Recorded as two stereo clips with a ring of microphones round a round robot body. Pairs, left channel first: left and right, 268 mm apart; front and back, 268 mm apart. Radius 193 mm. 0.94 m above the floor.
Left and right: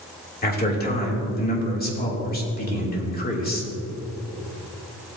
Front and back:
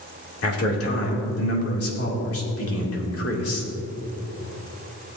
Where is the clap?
I don't hear a clap.